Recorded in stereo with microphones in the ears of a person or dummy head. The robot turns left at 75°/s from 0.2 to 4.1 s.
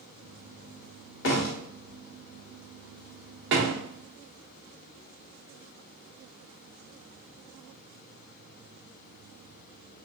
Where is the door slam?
75° left (ahead or behind), 1.4 m; by 3.8 s 65° right (ahead or behind), 1.4 m.